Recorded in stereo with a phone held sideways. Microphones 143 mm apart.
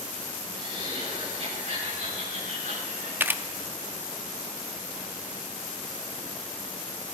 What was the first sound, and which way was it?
Laughter, 40° right (ahead or behind).